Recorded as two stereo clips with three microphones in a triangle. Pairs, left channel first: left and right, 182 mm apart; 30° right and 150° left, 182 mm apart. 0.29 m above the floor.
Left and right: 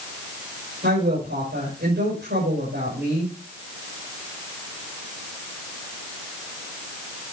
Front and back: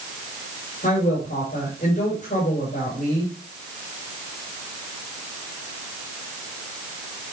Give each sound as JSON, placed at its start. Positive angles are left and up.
{"t": 0.8, "sound": "a woman speaking", "azimuth_deg": -75, "distance_m": 8.0}